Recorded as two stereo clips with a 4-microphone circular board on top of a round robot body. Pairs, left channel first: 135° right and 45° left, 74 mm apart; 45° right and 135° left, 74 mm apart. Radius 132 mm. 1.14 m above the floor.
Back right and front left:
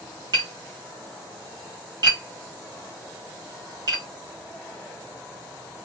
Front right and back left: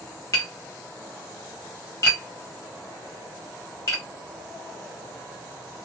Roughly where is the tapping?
Ahead.